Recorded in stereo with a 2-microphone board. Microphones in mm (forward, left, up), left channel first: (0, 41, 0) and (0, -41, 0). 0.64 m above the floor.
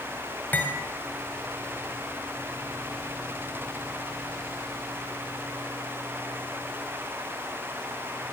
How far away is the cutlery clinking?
About 2 m.